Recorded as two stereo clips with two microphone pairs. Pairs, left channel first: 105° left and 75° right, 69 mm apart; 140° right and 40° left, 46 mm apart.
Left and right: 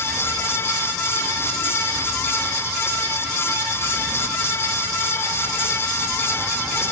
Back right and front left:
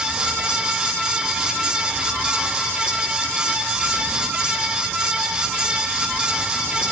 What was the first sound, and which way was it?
Only background noise.